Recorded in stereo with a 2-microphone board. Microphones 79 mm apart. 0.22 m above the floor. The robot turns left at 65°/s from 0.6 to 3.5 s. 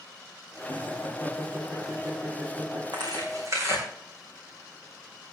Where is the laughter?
60° left (ahead or behind), 5 m; by 2.8 s 80° right, 5 m.